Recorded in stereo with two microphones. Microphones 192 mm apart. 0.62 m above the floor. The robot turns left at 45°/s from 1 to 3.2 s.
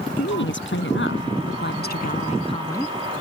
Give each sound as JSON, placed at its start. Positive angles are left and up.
{"t": 0.2, "sound": "a woman speaking", "azimuth_deg": 95}